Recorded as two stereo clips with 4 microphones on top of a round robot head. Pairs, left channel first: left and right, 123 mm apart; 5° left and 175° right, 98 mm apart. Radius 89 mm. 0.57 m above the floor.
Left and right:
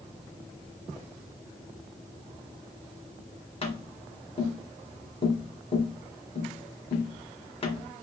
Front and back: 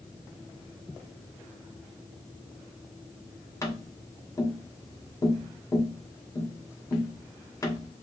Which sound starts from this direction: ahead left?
Tapping, at 3.6 s.